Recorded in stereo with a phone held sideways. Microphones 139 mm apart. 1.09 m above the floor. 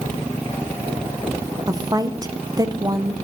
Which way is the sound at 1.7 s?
25° right (ahead or behind).